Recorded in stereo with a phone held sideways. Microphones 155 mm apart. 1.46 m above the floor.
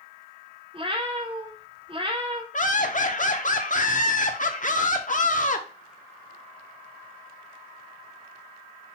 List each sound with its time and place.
0.7 s a cat meowing: 35° right (ahead or behind), 0.8 m
2.5 s laughter: 50° left (ahead or behind), 0.8 m